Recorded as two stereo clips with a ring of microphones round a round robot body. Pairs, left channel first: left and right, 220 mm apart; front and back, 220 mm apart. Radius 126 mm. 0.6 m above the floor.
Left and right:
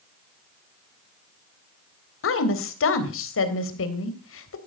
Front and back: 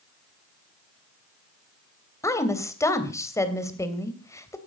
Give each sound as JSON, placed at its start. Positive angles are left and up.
{"t": 2.2, "sound": "a woman speaking", "azimuth_deg": 75, "distance_m": 3.0}